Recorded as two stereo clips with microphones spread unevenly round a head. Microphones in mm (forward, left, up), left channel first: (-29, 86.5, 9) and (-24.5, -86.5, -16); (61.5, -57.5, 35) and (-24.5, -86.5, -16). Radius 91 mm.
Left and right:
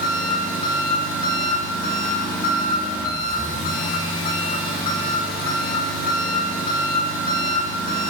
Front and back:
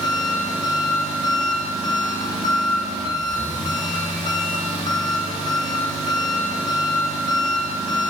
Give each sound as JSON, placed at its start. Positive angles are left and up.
{"t": 0.0, "sound": "an engine running", "azimuth_deg": 60, "distance_m": 1.4}